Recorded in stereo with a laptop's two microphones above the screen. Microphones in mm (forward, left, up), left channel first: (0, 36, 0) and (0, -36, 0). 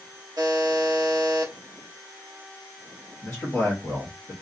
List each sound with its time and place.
0.4 s a buzzer: 80° right, 1.1 m
3.2 s a man speaking: 15° left (ahead or behind), 1.3 m